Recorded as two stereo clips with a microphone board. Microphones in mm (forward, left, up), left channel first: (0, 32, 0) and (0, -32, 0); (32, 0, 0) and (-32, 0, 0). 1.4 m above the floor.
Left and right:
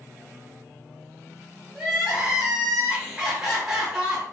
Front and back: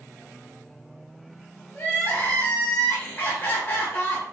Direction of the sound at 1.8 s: 15° right.